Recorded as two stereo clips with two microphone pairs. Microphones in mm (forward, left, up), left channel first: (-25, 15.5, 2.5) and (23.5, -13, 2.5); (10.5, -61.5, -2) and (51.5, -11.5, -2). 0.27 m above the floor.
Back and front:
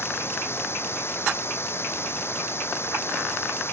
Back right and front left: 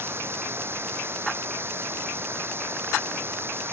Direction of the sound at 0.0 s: 105° left.